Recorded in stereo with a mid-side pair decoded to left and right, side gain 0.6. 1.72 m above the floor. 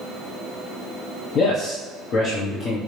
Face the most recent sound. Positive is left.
turn(degrees=50)